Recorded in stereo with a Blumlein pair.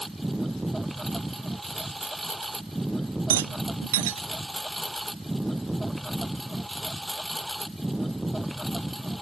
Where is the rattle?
55° right.